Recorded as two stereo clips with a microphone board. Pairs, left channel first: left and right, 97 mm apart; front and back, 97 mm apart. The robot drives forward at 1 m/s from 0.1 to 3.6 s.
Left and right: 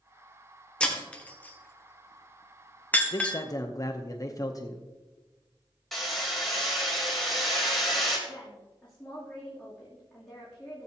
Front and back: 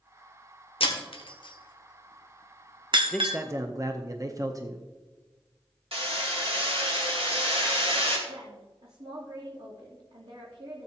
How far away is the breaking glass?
About 1.5 m.